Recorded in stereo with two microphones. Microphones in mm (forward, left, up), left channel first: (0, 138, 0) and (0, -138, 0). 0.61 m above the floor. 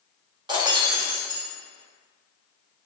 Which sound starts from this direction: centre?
Breaking glass, at 0.5 s.